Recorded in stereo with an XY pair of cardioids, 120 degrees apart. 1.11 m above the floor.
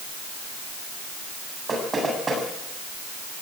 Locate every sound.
1.7 s knocking: 20° right, 7.5 m